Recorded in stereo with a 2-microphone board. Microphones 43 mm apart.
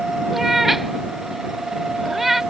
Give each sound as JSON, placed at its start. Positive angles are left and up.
{"t": 0.3, "sound": "a cat meowing", "side_deg": -5}